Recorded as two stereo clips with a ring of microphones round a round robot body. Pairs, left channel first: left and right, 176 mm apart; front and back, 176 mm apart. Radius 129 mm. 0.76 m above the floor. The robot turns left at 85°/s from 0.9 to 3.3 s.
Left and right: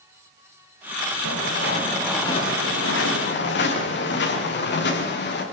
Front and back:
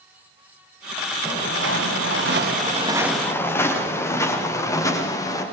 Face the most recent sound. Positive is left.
turn(degrees=70)